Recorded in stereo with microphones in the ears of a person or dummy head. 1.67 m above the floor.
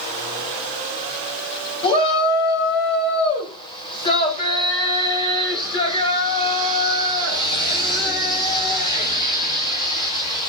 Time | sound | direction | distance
1.8 | a shout | 25° left (ahead or behind) | 6 m